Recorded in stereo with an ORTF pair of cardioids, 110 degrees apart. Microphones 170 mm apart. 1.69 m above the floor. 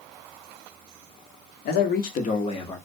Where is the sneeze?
I don't hear a sneeze.